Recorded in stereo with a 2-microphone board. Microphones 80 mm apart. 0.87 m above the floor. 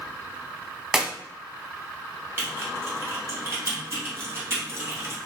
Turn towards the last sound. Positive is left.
turn(degrees=-35)  # may be behind; listen again after turning